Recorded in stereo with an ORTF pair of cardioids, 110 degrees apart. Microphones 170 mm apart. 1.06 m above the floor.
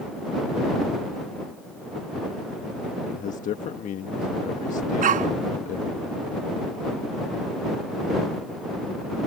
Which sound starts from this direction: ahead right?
A dog barking, at 5.0 s.